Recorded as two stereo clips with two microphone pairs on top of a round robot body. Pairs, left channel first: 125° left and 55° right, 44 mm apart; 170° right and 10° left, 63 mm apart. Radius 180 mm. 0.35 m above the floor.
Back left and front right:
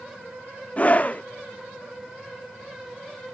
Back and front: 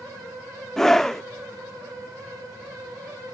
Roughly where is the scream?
Behind left.